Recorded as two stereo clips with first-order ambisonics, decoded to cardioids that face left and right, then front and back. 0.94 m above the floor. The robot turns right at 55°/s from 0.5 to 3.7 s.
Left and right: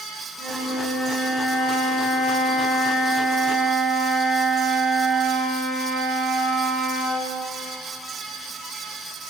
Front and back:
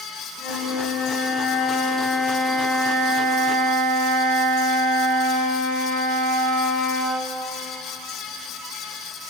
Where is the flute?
15° right, 3 m; by 7.3 s 160° left, 3 m.